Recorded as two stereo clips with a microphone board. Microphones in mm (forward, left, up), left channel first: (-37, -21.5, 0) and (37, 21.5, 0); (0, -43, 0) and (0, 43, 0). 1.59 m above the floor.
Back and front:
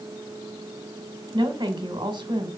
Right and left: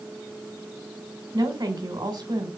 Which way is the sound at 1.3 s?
55° left.